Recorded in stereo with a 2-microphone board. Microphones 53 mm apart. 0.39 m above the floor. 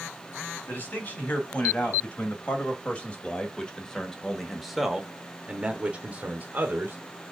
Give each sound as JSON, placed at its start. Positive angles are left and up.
{"t": 0.7, "sound": "a man speaking", "side_deg": 30, "distance_m": 3.0}